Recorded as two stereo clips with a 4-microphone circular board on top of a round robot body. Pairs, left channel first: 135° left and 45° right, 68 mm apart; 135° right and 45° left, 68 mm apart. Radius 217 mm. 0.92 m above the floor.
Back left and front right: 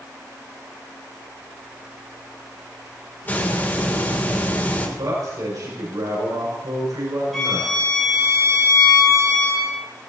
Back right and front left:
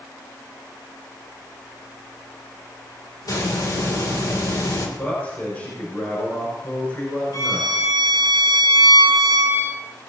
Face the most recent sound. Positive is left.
turn(degrees=-135)